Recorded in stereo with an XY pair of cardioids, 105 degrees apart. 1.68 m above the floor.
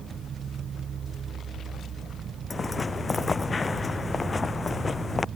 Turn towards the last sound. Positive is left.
turn(degrees=30)